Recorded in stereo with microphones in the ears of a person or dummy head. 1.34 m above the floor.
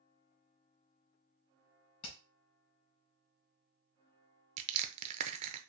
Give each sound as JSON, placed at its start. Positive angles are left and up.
{"t": 2.0, "sound": "hammering", "side_deg": 35, "distance_m": 2.0}
{"t": 4.6, "sound": "crushing", "side_deg": -35, "distance_m": 0.6}